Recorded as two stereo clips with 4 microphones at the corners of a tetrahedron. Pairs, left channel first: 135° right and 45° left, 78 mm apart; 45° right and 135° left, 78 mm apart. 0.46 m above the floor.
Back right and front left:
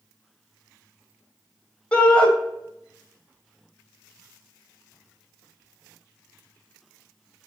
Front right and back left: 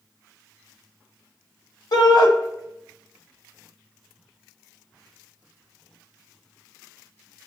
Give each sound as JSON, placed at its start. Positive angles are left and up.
{"t": 1.9, "sound": "a shout", "azimuth_deg": -60, "distance_m": 2.0}